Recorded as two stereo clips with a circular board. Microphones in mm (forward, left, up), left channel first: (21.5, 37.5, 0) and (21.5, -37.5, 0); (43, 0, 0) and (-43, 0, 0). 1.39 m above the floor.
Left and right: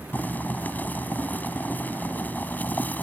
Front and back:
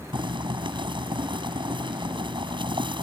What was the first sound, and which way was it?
Boiling, 155° left.